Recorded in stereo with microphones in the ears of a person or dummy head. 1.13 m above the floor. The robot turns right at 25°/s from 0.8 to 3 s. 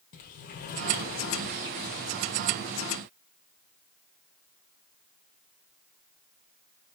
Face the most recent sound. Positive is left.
turn(degrees=105)